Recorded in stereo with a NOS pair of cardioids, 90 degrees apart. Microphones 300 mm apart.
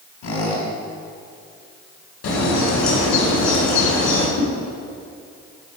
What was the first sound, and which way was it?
A squeak, 65° left.